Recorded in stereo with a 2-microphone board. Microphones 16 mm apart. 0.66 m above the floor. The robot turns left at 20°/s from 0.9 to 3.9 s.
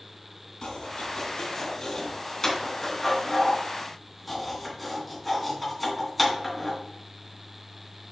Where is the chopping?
65° left (ahead or behind), 3 m; by 6.8 s 5° left (ahead or behind), 3 m.